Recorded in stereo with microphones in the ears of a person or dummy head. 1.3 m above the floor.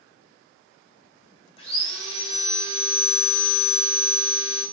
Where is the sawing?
45° left (ahead or behind), 8 m.